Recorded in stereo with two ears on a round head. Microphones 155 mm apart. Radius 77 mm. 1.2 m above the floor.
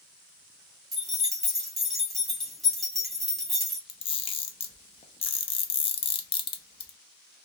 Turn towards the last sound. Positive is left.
turn(degrees=30)  # may be behind; listen again after turning